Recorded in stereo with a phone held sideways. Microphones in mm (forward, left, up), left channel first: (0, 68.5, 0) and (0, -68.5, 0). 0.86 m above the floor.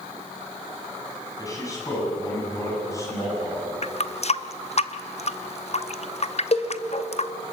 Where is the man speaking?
25° left (ahead or behind), 7 m; by 3.7 s 20° left (ahead or behind), 8 m.